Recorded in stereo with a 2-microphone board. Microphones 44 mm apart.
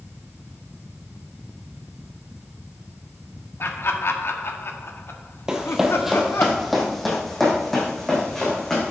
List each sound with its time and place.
3.6 s laughter: 65° left (ahead or behind), 1.4 m
5.5 s running footsteps: 15° right (ahead or behind), 1.5 m; by 8.9 s 10° left (ahead or behind), 4.5 m